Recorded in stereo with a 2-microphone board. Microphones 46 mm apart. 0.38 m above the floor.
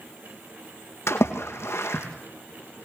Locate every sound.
1.1 s a splash: 85° left, 3 m